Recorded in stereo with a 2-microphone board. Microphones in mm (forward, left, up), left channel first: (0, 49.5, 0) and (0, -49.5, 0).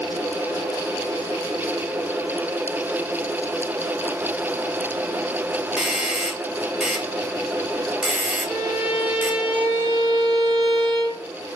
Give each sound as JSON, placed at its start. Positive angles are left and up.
{"t": 5.8, "sound": "a doorbell", "side_deg": -10, "distance_m": 1.8}
{"t": 8.5, "sound": "a violin", "side_deg": -65, "distance_m": 4.5}